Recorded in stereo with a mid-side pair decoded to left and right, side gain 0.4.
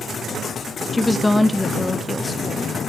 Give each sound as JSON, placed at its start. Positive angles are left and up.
{"t": 0.9, "sound": "a woman speaking", "azimuth_deg": 15, "distance_m": 1.0}